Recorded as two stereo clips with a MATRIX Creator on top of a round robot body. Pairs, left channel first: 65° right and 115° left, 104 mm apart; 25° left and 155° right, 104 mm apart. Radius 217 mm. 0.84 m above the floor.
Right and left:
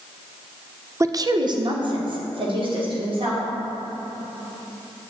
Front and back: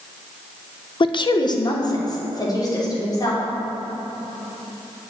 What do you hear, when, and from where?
1.0 s a woman speaking: 55° left, 0.6 m; by 3.4 s 80° left, 3 m